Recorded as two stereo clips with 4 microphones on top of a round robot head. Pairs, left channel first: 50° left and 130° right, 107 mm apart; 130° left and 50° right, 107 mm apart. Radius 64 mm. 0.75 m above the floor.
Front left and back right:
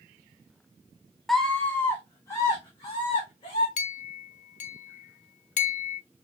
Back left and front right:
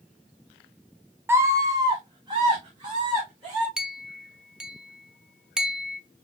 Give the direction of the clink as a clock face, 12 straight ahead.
11 o'clock.